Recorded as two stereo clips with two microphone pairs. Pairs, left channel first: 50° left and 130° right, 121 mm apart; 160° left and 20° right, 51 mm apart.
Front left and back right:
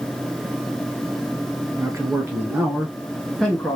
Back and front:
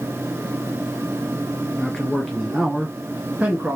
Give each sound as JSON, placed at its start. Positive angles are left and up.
{"t": 1.8, "sound": "a man speaking", "azimuth_deg": -145, "distance_m": 1.4}